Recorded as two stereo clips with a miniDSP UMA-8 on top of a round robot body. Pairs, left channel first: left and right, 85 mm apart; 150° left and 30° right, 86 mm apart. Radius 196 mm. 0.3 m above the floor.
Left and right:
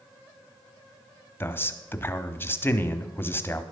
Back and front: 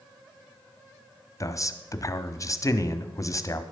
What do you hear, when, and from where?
1.4 s a man speaking: 140° left, 1.2 m